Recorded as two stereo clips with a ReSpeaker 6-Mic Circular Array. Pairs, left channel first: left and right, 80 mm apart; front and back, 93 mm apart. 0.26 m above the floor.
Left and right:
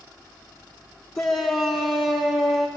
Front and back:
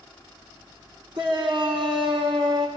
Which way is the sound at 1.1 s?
Straight behind.